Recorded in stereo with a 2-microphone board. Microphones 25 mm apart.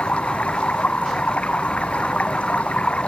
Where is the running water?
75° left (ahead or behind).